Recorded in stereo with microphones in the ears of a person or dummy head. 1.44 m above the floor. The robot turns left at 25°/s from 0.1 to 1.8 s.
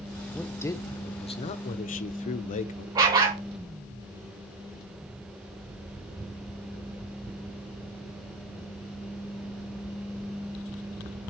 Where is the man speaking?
175° left, 0.8 m; by 2.9 s 135° left, 0.8 m.